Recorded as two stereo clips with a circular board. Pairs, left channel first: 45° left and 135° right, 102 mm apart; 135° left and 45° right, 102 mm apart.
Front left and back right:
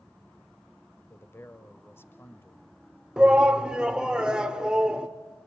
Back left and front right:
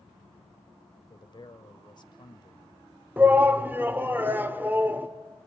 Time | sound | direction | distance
1.1 | a man speaking | 105° left | 1.3 m
3.2 | a shout | 70° right | 1.2 m